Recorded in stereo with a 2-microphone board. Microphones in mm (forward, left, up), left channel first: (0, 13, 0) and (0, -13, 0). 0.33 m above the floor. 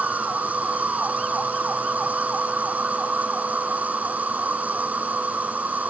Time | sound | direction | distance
0.0 | an insect | 75° right (ahead or behind) | ?